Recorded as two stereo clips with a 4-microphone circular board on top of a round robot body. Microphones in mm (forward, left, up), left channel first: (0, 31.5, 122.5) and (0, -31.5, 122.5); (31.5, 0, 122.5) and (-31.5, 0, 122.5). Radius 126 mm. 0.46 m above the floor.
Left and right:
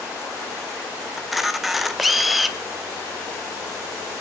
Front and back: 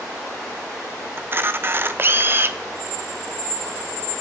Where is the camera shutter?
175° right, 0.9 m.